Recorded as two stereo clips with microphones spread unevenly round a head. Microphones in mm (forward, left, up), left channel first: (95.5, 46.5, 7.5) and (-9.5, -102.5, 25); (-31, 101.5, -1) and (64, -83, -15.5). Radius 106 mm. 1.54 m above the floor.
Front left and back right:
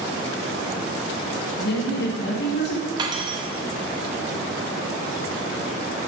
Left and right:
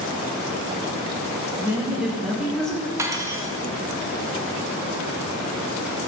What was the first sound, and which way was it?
A woman speaking, 20° left.